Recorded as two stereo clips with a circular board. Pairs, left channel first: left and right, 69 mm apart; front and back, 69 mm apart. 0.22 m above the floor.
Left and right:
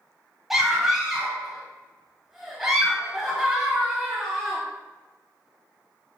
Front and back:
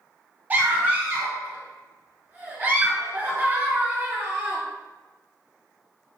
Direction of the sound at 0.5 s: 175° right.